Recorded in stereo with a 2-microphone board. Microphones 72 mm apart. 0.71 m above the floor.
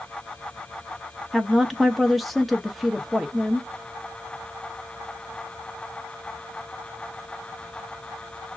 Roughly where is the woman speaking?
Centre.